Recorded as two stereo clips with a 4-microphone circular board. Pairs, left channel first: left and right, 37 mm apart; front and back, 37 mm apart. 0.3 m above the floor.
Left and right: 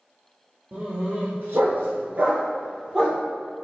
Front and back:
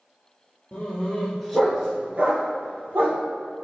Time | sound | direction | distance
0.7 | a dog barking | 50° right | 1.9 m